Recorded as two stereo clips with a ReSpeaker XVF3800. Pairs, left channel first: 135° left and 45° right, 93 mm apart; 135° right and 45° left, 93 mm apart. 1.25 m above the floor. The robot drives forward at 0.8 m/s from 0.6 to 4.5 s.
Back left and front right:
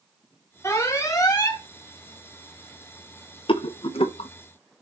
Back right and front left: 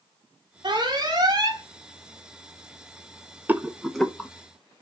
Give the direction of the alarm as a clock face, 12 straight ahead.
9 o'clock.